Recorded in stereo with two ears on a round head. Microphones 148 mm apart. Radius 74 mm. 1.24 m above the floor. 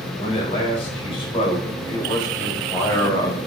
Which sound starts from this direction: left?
A man speaking, at 0.2 s.